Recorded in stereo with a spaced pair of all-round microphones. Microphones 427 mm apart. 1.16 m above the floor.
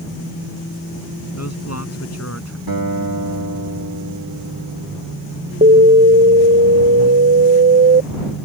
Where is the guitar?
55° right (ahead or behind).